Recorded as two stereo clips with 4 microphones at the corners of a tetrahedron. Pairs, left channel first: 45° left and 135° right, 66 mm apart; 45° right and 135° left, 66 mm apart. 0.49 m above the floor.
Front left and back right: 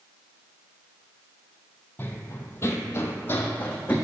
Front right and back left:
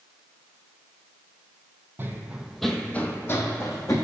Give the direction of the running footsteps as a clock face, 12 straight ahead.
9 o'clock.